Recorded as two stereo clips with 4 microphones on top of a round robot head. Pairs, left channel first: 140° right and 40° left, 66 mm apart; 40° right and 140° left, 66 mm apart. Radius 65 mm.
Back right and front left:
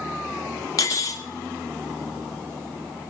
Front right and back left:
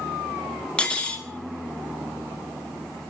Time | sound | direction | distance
0.8 | cutlery clinking | 115° right | 0.5 m